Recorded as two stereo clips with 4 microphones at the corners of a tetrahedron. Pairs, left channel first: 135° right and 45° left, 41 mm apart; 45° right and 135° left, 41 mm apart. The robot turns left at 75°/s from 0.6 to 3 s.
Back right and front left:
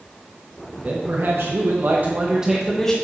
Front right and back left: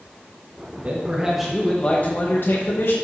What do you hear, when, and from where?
0.8 s a man speaking: 95° left, 1.2 m; by 2.9 s 65° right, 1.2 m